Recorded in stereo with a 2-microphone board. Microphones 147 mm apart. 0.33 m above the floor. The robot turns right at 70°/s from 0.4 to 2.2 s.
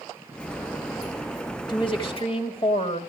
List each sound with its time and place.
1.7 s a woman speaking: 55° left, 1.6 m; by 3.0 s 90° left, 1.6 m